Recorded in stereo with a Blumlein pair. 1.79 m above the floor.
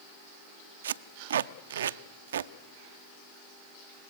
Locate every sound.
0.8 s tape being pulled: 65° right, 0.6 m